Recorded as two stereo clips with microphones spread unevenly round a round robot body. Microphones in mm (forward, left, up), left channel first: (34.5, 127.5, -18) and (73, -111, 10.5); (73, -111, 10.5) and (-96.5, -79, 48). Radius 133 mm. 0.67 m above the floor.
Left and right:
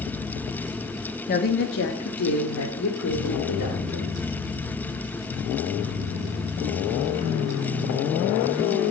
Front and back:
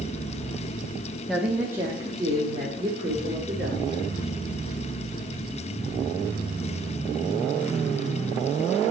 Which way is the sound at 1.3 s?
70° left.